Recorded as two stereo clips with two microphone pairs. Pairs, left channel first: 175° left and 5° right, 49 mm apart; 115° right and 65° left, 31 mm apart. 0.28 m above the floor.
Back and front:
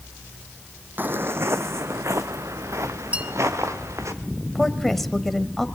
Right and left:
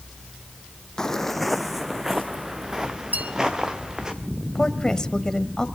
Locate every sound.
1.0 s footsteps: 50° right, 0.6 m; by 4.1 s 5° right, 3 m
3.1 s a bell: 55° left, 2 m
4.5 s a woman speaking: 105° right, 1.3 m